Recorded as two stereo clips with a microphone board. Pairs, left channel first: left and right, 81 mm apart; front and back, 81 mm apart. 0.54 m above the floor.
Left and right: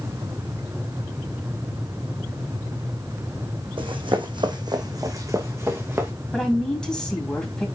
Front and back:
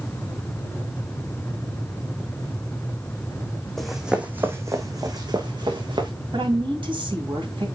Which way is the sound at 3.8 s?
85° right.